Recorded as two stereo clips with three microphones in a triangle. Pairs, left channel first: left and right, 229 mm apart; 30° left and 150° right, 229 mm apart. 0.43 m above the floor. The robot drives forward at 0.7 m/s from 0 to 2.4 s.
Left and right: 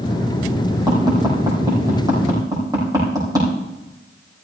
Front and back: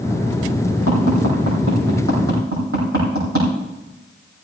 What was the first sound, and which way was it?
Tapping, 160° right.